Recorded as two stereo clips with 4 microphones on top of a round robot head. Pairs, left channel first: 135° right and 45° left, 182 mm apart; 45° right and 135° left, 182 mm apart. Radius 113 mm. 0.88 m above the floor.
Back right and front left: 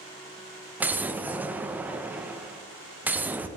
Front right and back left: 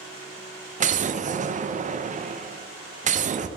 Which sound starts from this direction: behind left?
An explosion, at 0.8 s.